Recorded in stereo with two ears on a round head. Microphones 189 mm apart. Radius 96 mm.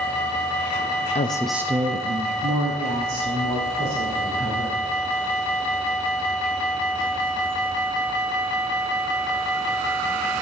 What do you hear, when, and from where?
1.1 s a woman speaking: 30° left (ahead or behind), 0.5 m; by 4.8 s 65° right (ahead or behind), 3 m